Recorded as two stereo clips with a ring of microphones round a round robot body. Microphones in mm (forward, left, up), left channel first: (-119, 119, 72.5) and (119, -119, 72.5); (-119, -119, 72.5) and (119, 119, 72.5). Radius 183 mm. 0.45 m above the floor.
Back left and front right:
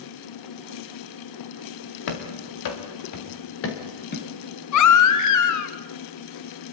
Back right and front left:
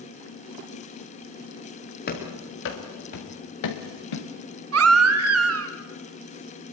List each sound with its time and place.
2.1 s running footsteps: 160° left, 4 m; by 4.3 s 160° right, 4 m
4.7 s a baby crying: 95° left, 1.7 m